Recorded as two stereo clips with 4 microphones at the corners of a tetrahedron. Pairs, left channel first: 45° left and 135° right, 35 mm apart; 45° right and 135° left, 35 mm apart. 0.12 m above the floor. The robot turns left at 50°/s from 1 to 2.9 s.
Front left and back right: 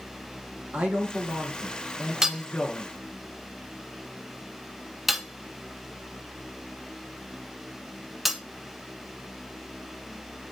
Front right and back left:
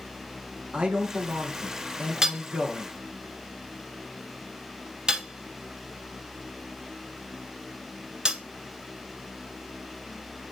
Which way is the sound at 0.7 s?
175° right.